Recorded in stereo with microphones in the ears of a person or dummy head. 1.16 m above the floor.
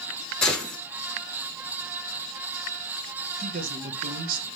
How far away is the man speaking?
About 1.1 m.